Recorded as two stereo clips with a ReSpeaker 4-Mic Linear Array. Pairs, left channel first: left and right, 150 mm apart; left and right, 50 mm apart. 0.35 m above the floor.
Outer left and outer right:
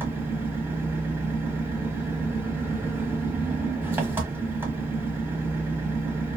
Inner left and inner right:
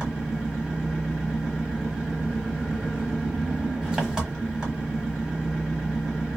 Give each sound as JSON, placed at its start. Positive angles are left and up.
{"t": 0.0, "sound": "an engine running", "side_deg": -15, "distance_m": 1.2}